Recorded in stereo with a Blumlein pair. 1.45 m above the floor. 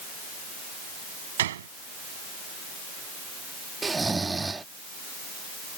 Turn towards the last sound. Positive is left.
turn(degrees=-10)